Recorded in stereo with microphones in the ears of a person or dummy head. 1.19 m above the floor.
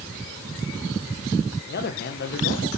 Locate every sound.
1.7 s a man speaking: 40° left (ahead or behind), 1.1 m